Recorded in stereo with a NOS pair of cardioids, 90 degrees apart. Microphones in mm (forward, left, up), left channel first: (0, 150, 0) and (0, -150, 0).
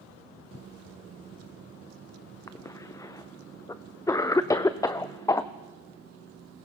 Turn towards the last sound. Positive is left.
turn(degrees=10)